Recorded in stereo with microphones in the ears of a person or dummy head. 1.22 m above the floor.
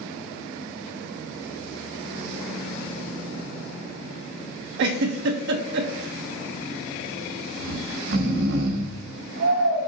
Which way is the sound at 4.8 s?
70° right (ahead or behind).